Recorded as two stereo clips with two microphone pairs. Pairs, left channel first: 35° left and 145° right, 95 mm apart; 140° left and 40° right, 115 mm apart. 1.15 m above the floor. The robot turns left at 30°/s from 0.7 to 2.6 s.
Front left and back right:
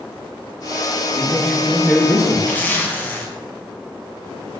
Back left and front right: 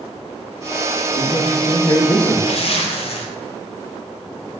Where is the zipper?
110° left, 0.6 m; by 3.3 s 105° left, 0.6 m.